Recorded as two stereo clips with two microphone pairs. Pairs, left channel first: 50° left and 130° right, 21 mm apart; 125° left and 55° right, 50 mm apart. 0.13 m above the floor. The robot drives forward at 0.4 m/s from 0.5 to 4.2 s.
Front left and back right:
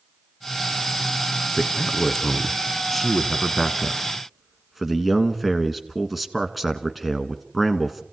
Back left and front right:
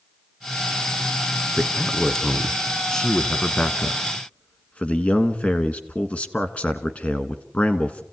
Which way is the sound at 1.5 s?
25° left.